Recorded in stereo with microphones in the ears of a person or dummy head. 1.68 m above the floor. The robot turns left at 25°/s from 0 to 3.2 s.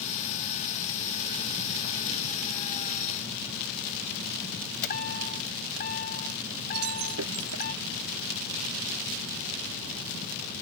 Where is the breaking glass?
85° right.